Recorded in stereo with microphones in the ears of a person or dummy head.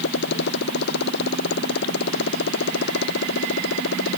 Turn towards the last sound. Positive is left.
turn(degrees=65)  # may be behind; listen again after turning